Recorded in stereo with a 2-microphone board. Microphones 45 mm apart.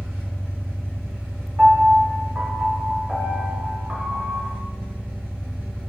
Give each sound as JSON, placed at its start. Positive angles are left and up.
{"t": 0.0, "sound": "an engine running", "side_deg": -55, "distance_m": 1.6}
{"t": 1.6, "sound": "a piano", "side_deg": -30, "distance_m": 1.1}